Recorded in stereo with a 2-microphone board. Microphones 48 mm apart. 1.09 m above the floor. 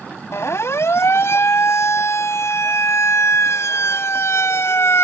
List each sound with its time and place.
0.3 s a siren: 70° left (ahead or behind)